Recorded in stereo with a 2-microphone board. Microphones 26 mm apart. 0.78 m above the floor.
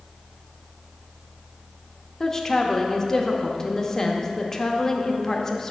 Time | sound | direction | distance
2.2 | a woman speaking | 15° left (ahead or behind) | 0.8 m